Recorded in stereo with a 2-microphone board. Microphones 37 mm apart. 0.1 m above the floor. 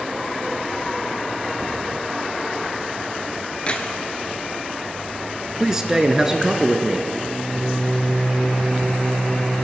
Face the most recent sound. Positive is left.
turn(degrees=20)  # may be behind; listen again after turning